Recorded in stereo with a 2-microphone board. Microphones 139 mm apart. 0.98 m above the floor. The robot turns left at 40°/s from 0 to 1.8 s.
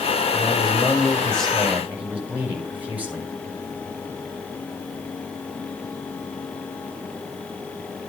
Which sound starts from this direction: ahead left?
A man speaking, at 0.3 s.